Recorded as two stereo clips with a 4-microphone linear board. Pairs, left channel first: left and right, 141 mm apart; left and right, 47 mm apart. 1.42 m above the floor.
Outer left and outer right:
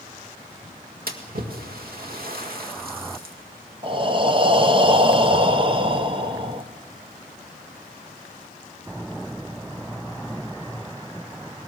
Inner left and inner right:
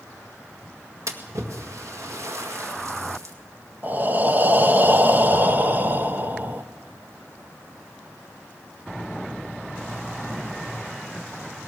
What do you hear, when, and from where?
1.1 s a splash: 85° right, 1.9 m
3.8 s breathing: 35° right (ahead or behind), 1.0 m